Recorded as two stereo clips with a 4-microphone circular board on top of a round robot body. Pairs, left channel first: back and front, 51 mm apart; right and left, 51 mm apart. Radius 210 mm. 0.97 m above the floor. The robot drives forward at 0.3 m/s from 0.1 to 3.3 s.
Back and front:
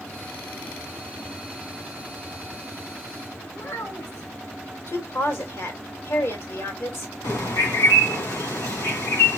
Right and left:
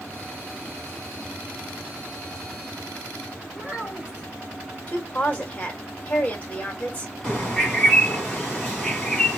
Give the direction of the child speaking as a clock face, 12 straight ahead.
7 o'clock.